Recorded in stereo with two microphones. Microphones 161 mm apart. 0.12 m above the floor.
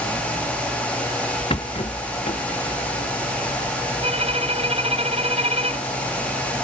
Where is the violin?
40° right (ahead or behind).